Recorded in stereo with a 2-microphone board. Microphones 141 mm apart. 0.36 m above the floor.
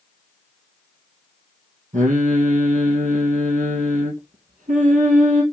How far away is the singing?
About 2.5 m.